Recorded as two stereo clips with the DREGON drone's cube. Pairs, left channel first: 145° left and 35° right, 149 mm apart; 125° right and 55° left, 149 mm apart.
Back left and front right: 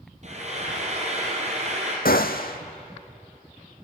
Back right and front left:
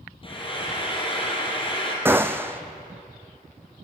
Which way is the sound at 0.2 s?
70° right.